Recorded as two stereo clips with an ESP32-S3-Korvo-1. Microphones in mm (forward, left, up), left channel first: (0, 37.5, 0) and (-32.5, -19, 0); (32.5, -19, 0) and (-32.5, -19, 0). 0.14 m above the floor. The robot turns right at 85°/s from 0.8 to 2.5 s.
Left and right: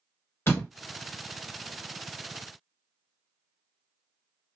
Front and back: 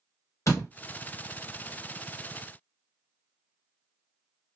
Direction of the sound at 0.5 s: 20° left.